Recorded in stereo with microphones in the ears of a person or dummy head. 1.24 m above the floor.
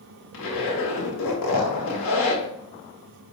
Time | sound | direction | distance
0.3 | a zipper | 80° left | 1.2 m